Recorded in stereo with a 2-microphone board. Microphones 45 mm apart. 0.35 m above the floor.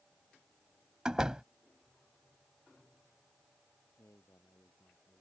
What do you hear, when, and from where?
1.1 s a door slam: 15° right (ahead or behind)
4.0 s a man speaking: 80° left